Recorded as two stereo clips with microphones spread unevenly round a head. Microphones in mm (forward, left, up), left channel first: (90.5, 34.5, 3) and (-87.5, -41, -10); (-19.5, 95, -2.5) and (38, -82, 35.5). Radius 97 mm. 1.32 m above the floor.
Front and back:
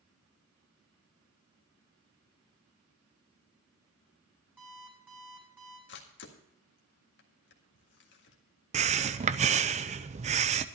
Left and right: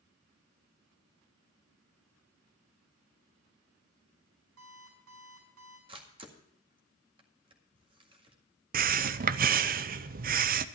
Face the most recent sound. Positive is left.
turn(degrees=-115)